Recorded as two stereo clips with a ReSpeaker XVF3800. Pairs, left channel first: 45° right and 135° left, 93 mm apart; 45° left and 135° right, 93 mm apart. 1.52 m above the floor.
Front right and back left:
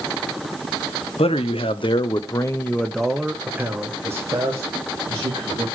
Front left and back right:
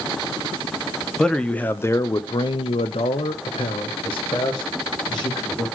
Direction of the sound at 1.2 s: 40° right.